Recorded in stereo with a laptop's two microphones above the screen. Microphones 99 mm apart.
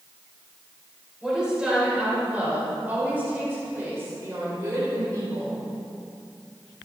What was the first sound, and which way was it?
A woman speaking, 10° right (ahead or behind).